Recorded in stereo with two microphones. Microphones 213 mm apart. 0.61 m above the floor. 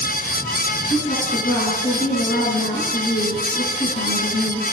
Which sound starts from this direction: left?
A woman speaking, at 0.9 s.